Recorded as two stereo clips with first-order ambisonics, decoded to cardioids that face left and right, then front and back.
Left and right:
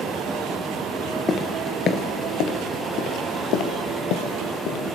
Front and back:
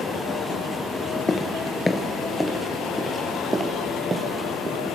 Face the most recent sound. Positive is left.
turn(degrees=110)